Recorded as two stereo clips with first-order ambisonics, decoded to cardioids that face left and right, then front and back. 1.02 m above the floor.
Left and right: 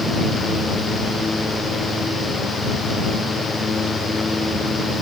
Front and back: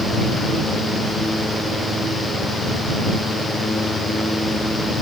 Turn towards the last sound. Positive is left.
No sound to turn to.